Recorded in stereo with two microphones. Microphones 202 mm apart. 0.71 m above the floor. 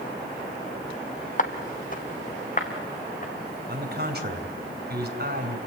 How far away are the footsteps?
About 1.2 m.